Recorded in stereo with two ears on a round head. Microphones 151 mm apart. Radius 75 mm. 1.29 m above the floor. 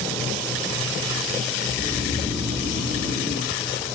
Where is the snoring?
5° right (ahead or behind), 2 m.